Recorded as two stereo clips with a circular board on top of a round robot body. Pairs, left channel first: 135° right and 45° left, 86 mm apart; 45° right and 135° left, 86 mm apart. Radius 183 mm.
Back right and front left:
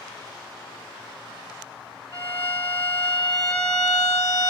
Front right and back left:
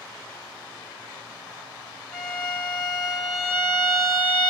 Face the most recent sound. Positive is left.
turn(degrees=-125)